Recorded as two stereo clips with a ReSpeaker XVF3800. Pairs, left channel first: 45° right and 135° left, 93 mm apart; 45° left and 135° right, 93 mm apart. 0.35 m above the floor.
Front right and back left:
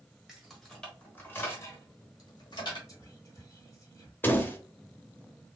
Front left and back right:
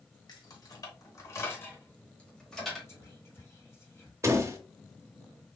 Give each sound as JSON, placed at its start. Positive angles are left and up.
{"t": 0.3, "sound": "keys jangling", "azimuth_deg": 50, "distance_m": 1.2}
{"t": 2.9, "sound": "whispering", "azimuth_deg": -5, "distance_m": 1.4}
{"t": 4.2, "sound": "a door slam", "azimuth_deg": -100, "distance_m": 0.6}